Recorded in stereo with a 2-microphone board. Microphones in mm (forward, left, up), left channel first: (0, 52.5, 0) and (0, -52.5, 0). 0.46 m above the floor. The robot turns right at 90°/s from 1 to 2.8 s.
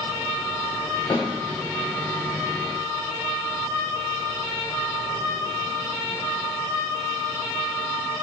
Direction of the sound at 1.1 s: 50° left (ahead or behind).